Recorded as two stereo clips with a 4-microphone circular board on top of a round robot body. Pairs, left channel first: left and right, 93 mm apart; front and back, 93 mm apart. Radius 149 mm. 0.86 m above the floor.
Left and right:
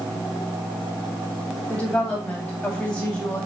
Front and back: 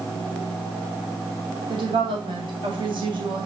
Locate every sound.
1.7 s a woman speaking: 165° left, 2.5 m